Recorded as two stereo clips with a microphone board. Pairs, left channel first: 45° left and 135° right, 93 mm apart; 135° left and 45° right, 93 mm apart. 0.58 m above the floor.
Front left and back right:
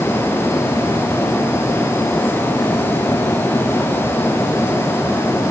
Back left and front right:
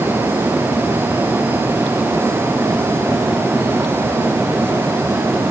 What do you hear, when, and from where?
Only background noise.